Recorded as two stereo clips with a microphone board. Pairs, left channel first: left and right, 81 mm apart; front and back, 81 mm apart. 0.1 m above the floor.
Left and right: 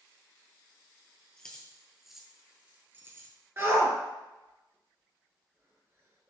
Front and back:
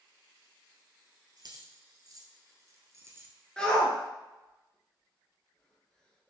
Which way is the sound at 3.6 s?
70° right.